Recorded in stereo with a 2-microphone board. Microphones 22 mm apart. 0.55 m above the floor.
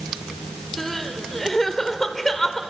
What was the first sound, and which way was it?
Crying, 15° left (ahead or behind).